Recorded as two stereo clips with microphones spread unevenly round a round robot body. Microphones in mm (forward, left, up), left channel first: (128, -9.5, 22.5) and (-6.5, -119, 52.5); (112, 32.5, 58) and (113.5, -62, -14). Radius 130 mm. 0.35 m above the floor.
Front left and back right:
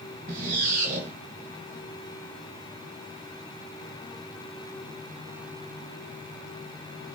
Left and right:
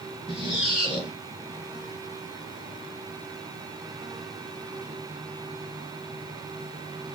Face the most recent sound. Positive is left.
turn(degrees=165)